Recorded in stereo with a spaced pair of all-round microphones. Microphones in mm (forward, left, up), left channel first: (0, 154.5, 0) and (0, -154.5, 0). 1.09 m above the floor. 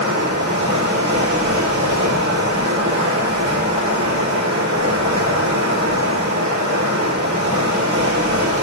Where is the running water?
65° right (ahead or behind), 4 m.